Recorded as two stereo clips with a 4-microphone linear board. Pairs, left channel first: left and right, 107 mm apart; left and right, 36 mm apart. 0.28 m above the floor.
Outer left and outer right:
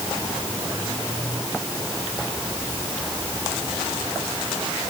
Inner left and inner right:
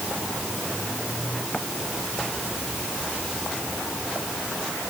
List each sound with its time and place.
Only background noise.